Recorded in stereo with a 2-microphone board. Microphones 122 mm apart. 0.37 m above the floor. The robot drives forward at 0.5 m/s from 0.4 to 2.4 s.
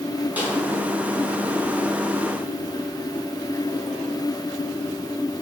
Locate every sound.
0.4 s a snare drum: 10° right (ahead or behind), 4.5 m